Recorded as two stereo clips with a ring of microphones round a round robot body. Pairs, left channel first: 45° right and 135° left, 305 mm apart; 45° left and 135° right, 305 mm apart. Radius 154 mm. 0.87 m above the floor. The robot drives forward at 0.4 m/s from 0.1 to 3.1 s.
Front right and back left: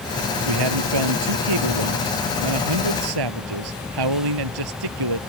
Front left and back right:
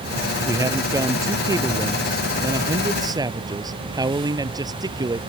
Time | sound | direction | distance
0.5 | a man speaking | 145° left | ?